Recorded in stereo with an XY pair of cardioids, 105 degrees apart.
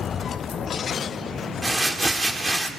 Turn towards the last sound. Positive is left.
turn(degrees=-15)